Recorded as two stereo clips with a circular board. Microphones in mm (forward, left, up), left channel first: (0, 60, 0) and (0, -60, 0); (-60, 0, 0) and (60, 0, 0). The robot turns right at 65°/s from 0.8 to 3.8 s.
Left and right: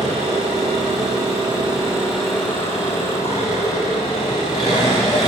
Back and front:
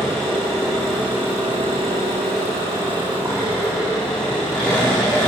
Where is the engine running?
95° right, 8 m; by 5.3 s 100° left, 8 m.